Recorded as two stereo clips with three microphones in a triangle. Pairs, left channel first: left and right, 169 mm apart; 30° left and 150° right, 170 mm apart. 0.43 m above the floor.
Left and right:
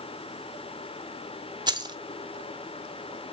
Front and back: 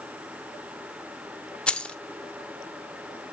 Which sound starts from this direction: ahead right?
Keys jangling, at 1.7 s.